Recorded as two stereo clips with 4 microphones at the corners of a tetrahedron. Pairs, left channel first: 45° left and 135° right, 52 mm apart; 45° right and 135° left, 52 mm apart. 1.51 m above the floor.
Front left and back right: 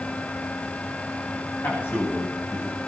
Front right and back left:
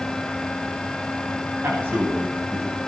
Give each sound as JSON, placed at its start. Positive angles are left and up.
{"t": 1.6, "sound": "a man speaking", "azimuth_deg": 85, "distance_m": 9.0}